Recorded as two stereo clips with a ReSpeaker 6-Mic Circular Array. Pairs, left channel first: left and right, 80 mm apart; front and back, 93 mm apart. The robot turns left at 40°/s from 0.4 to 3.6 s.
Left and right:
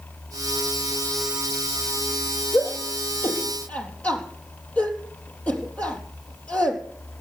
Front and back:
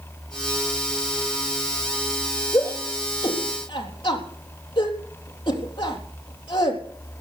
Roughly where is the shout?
Ahead left.